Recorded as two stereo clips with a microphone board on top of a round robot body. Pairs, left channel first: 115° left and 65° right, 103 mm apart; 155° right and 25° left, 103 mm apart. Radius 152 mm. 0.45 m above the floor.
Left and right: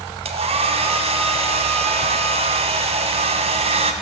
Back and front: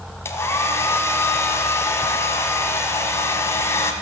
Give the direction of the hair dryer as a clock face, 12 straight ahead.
3 o'clock.